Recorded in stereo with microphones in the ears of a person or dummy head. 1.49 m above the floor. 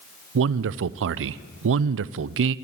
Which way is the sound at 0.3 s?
70° right (ahead or behind).